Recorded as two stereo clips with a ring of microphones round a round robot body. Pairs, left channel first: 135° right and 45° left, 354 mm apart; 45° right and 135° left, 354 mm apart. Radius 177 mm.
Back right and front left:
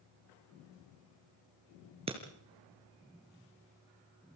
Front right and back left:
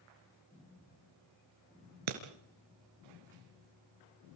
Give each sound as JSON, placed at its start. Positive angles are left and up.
{"t": 2.1, "sound": "breaking glass", "azimuth_deg": 120, "distance_m": 3.5}